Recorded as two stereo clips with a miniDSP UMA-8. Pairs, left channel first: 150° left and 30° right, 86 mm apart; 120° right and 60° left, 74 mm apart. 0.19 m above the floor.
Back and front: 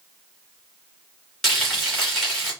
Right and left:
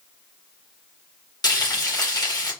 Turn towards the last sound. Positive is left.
turn(degrees=-120)